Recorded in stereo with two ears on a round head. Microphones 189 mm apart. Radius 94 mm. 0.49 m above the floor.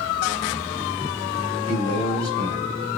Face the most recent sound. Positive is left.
turn(degrees=-20)  # may be behind; listen again after turning